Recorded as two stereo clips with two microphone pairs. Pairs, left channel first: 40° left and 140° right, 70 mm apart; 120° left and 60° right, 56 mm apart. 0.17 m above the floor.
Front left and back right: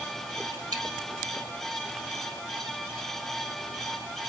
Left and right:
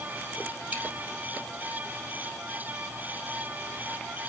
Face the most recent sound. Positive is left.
turn(degrees=-120)